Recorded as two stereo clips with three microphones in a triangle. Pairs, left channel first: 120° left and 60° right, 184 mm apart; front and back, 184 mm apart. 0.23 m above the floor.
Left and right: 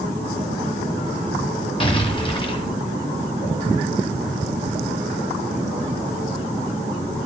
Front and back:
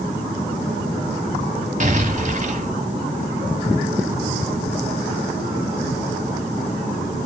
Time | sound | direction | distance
1.8 | an explosion | 165° left | 1.8 m